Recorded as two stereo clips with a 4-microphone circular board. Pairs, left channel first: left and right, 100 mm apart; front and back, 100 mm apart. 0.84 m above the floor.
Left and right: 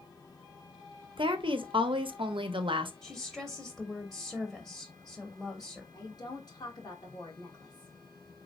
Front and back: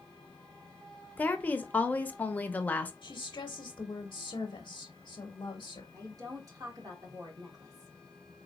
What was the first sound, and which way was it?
A woman speaking, 70° right.